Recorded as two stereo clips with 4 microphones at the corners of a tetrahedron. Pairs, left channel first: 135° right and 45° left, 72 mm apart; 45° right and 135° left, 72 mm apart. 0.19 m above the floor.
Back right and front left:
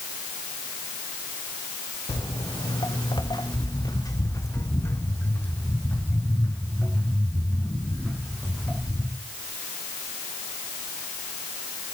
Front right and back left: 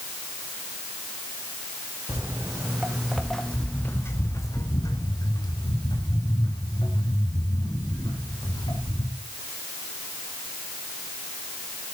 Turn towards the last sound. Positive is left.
turn(degrees=-45)